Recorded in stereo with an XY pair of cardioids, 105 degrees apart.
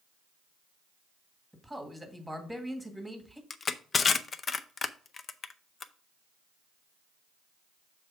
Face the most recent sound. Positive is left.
turn(degrees=40)